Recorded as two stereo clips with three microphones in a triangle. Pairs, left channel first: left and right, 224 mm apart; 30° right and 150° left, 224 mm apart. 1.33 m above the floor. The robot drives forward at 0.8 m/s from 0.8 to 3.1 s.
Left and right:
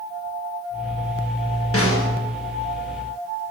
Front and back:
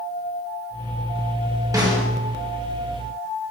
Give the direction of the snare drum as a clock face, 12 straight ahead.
9 o'clock.